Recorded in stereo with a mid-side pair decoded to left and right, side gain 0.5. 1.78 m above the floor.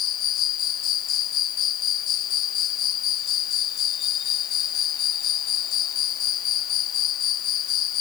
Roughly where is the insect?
Left.